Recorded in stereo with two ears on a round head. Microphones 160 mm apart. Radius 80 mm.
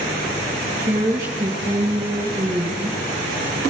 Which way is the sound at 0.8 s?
40° right (ahead or behind).